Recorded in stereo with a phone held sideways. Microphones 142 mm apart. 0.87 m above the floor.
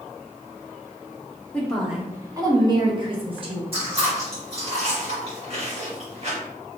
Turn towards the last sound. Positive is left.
turn(degrees=-45)  # may be behind; listen again after turning